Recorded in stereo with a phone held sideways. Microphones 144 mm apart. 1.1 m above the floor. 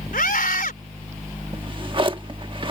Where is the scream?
80° left.